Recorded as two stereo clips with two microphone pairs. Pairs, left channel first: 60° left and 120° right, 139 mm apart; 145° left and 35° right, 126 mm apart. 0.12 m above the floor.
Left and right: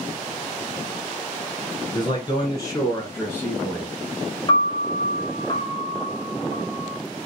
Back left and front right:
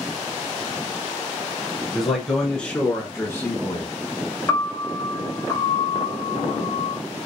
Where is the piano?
90° left, 1.1 m.